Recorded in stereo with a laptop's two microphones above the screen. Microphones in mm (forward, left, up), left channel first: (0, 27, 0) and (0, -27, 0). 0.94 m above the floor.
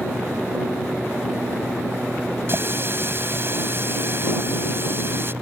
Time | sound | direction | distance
2.5 | a running tap | 45° right (ahead or behind) | ?